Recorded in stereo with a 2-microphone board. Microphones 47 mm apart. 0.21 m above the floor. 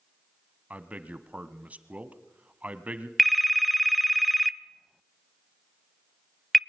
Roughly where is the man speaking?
Right.